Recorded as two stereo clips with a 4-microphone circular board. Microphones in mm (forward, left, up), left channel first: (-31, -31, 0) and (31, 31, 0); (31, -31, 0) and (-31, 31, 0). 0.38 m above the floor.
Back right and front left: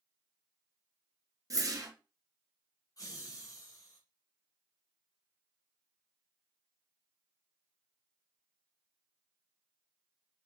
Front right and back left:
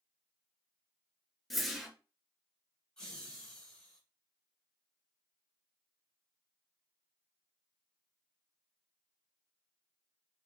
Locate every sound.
1.5 s a whoosh: 45° left, 0.6 m
3.0 s laughter: 125° right, 1.3 m